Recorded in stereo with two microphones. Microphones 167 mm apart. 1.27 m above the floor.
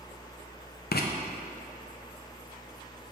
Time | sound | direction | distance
0.9 | writing | 70° left (ahead or behind) | 0.5 m